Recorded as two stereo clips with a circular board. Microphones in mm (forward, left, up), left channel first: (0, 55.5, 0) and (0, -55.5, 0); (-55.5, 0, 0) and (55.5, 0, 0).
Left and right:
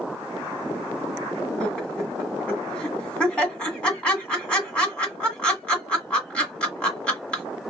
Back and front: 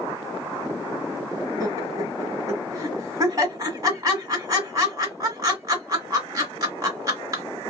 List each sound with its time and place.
1.6 s laughter: 20° left, 1.5 m